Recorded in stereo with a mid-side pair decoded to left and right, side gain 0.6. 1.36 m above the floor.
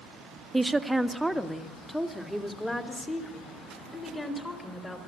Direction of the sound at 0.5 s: 5° right.